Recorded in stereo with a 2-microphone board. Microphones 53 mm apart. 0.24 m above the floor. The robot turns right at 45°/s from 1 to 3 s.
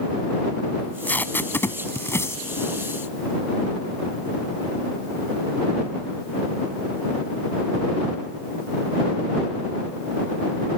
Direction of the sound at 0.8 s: 30° left (ahead or behind).